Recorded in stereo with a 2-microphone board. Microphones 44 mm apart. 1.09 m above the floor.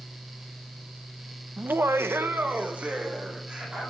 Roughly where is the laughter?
Right.